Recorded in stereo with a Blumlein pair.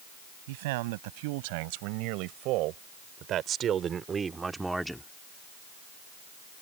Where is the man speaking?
50° right; by 5.1 s 5° left.